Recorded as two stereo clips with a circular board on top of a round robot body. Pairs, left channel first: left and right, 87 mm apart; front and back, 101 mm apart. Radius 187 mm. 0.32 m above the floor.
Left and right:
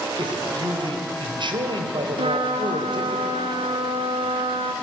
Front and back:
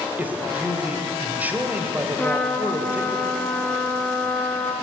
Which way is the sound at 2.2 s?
75° right.